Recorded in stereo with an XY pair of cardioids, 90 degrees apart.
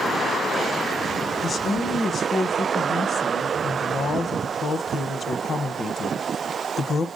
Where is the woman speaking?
55° left, 1.0 m.